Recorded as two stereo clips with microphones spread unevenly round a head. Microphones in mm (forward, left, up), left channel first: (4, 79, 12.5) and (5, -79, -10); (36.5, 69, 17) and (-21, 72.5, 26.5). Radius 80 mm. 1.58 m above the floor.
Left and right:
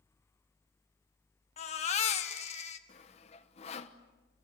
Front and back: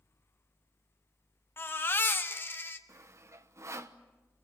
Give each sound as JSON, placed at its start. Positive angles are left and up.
{"t": 1.6, "sound": "a baby crying", "azimuth_deg": 50, "distance_m": 1.7}
{"t": 2.9, "sound": "sawing", "azimuth_deg": 145, "distance_m": 1.2}